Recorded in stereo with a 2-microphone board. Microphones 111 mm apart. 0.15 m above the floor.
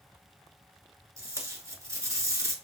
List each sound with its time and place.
1.2 s tape being pulled: 30° right (ahead or behind), 1.0 m